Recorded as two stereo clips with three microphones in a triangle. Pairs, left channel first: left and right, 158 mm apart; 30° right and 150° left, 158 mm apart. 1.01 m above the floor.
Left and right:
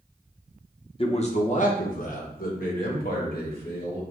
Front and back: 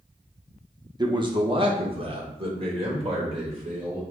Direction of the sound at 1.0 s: 110° left.